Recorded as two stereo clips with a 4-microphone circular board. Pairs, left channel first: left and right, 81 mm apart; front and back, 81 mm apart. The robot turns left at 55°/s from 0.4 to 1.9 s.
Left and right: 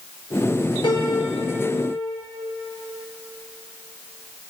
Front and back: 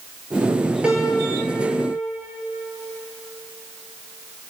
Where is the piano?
105° left, 3 m; by 2.2 s 45° left, 3 m.